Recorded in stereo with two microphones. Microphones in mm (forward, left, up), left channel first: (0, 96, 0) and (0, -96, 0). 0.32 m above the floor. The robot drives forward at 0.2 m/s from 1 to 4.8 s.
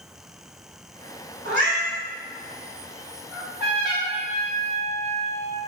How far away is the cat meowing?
About 1.1 m.